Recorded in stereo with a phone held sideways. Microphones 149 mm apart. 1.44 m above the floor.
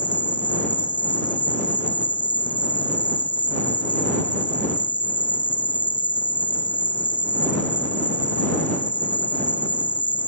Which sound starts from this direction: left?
An insect, at 0.0 s.